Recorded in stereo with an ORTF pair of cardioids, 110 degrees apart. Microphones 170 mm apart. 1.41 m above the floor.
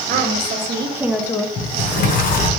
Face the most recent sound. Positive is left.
turn(degrees=55)